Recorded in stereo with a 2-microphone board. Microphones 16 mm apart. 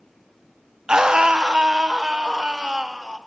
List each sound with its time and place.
0.9 s a scream: 85° right, 0.6 m; by 3.2 s 80° right, 3 m